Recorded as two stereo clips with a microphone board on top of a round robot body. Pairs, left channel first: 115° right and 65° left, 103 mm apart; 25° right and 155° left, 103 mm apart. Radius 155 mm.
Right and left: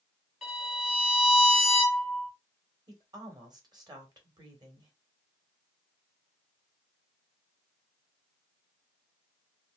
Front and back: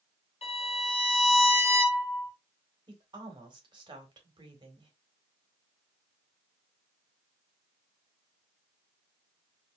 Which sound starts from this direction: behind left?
A woman speaking, at 2.9 s.